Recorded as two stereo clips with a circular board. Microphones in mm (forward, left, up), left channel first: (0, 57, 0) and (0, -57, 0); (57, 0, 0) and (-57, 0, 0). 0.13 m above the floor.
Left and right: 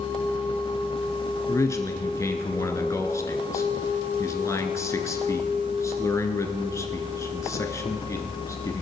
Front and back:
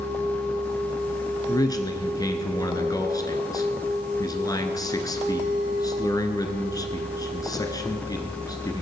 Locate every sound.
1.5 s a man speaking: 40° left, 1.5 m